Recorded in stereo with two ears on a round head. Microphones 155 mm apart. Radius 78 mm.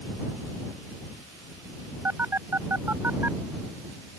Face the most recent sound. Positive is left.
turn(degrees=-15)  # may be behind; listen again after turning